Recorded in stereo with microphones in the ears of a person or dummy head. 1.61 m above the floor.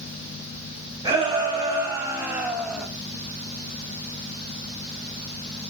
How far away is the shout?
About 3.5 m.